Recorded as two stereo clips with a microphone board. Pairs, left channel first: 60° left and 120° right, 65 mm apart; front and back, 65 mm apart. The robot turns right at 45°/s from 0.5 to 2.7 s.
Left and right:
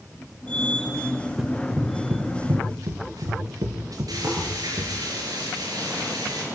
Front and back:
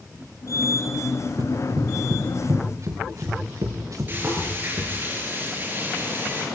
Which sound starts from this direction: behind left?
Running footsteps, at 1.4 s.